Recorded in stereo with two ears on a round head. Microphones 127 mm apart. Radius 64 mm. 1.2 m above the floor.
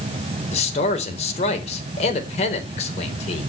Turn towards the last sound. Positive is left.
turn(degrees=50)  # may be behind; listen again after turning